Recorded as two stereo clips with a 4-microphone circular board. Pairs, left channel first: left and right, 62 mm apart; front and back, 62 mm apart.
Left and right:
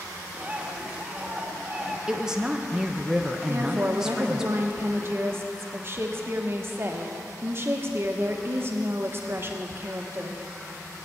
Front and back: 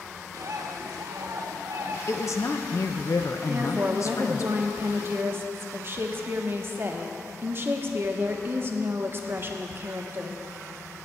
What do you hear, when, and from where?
0.3 s a bird: 165° right, 1.2 m
2.1 s a woman speaking: 10° right, 0.8 m
3.5 s a woman speaking: 135° right, 1.0 m